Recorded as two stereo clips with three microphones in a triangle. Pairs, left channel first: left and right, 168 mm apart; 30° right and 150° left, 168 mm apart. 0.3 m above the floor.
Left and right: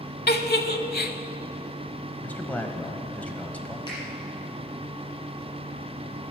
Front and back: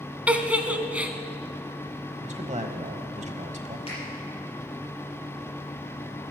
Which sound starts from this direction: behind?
A man speaking, at 2.2 s.